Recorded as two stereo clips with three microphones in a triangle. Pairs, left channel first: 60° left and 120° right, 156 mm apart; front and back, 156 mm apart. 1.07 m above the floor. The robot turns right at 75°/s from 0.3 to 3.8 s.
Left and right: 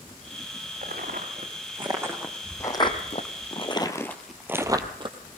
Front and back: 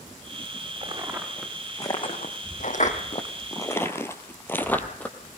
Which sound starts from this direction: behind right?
Footsteps, at 0.8 s.